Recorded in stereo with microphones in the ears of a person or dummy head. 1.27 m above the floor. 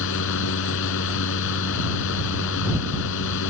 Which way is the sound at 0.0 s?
75° left (ahead or behind).